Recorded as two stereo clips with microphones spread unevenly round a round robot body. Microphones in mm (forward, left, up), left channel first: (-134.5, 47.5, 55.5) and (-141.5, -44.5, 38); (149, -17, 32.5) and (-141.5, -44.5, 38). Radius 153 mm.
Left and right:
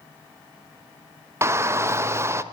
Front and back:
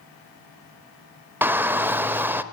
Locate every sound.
1.4 s a shout: 95° right, 1.0 m